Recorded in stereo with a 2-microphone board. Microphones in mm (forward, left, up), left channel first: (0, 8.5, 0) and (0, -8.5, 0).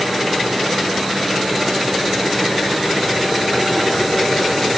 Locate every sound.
Only background noise.